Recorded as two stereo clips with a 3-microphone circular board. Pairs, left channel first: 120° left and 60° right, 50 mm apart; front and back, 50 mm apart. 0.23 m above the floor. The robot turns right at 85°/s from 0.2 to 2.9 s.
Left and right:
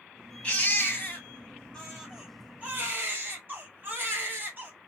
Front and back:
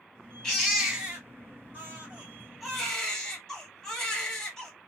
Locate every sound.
0.4 s a baby crying: 75° left, 1.4 m; by 4.7 s 75° right, 1.4 m